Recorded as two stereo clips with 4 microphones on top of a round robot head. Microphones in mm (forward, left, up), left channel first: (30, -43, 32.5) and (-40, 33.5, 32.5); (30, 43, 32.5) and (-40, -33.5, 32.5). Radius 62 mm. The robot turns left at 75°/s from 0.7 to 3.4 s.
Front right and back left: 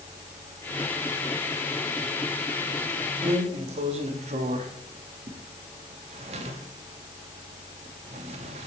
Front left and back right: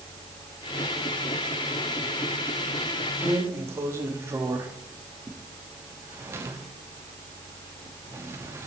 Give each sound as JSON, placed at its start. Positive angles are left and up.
{"t": 3.2, "sound": "a drawer", "azimuth_deg": 175, "distance_m": 0.8}